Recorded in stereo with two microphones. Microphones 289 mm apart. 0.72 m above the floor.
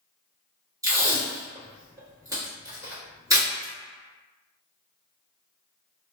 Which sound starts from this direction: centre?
Tape being pulled, at 0.8 s.